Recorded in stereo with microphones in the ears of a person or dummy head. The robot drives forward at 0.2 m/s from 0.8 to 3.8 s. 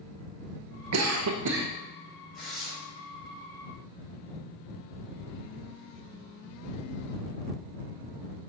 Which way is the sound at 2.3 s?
Centre (ahead or behind).